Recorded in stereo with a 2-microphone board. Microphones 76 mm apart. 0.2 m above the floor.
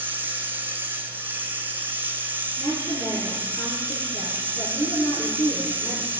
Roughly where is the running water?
Right.